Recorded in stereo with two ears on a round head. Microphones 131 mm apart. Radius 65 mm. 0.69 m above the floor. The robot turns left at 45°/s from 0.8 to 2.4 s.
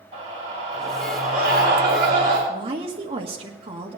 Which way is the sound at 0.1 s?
45° right.